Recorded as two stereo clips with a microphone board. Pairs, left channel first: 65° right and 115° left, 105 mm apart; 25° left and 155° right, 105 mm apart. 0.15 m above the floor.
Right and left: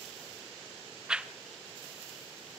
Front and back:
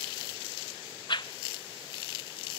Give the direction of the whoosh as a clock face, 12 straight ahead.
11 o'clock.